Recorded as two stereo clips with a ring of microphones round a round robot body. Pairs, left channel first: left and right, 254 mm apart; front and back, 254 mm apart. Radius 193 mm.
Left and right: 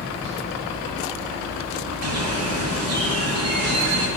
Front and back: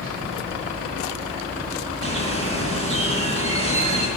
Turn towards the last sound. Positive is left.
turn(degrees=-125)